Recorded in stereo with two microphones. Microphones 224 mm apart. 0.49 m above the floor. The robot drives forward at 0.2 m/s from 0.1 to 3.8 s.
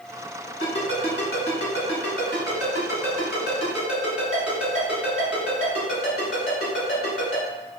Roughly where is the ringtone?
Left.